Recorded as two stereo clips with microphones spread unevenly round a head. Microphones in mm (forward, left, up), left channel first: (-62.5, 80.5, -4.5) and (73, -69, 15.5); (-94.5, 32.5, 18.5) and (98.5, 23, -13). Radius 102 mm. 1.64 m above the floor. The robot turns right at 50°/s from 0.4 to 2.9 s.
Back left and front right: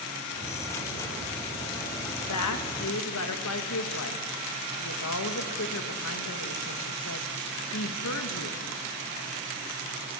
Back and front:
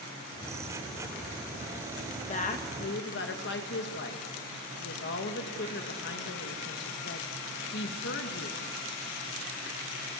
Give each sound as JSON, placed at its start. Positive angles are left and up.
{"t": 2.3, "sound": "a woman speaking", "azimuth_deg": 125, "distance_m": 1.8}